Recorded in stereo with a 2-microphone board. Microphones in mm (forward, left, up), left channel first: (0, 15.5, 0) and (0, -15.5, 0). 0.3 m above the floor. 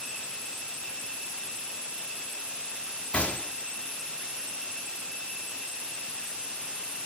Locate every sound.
3.1 s a gunshot: 40° left (ahead or behind), 0.6 m